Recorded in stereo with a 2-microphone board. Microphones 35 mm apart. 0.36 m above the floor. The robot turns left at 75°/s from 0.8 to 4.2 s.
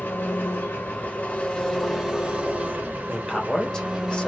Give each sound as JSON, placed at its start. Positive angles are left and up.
{"t": 0.0, "sound": "an engine running", "azimuth_deg": 85, "distance_m": 1.5}
{"t": 3.1, "sound": "a man speaking", "side_deg": 5, "distance_m": 1.1}